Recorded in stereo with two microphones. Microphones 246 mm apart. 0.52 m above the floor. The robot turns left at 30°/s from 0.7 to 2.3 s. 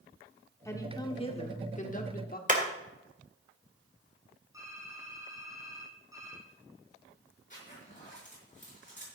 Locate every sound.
0.7 s a woman speaking: 160° left, 1.2 m; by 2.4 s 115° left, 1.2 m
2.5 s hammering: 30° right (ahead or behind), 1.9 m
4.5 s typing on a keyboard: 15° right (ahead or behind), 4.5 m
7.5 s a zipper: 30° left (ahead or behind), 6 m